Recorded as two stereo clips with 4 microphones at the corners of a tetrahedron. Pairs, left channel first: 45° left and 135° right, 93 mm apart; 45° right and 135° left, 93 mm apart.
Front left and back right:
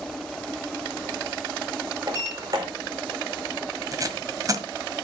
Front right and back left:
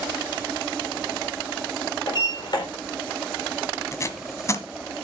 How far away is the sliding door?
About 4 m.